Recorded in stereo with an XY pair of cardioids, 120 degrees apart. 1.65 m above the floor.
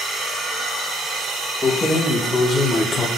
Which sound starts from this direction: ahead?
Keys jangling, at 1.6 s.